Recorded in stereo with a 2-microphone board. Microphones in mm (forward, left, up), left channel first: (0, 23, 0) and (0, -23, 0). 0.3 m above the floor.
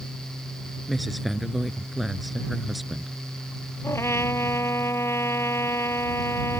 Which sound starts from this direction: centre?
A woman speaking, at 0.9 s.